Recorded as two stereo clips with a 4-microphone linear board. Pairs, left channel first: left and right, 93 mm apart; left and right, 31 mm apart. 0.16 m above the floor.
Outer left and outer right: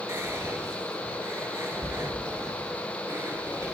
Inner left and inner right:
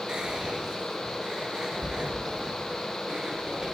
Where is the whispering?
30° right (ahead or behind), 2.5 m.